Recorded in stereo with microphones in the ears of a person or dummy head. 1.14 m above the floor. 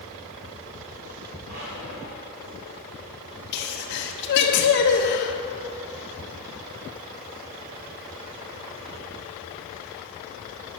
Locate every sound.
1.4 s a squeak: 55° right (ahead or behind), 2.5 m
3.5 s a sneeze: 60° left (ahead or behind), 1.0 m